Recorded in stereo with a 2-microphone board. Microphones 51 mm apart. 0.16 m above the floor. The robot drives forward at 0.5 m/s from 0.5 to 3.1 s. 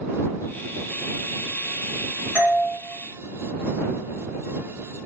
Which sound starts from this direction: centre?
A doorbell, at 2.4 s.